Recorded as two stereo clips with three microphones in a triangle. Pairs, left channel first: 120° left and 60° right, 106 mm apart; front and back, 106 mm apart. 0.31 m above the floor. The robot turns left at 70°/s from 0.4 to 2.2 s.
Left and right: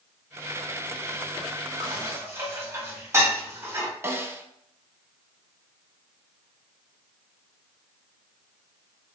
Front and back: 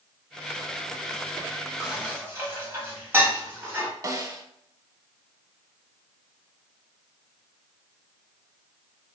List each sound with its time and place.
1.8 s dishes clattering: 90° right, 1.4 m; by 3.9 s 120° right, 1.4 m
4.0 s a snare drum: 125° right, 0.5 m